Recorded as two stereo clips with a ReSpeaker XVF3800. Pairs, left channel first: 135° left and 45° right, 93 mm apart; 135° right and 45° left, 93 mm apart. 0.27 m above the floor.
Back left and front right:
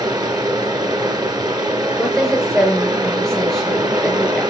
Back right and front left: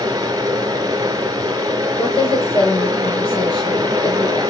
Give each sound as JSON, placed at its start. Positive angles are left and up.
{"t": 0.0, "sound": "running water", "azimuth_deg": 0, "distance_m": 1.3}
{"t": 2.0, "sound": "a woman speaking", "azimuth_deg": -135, "distance_m": 4.0}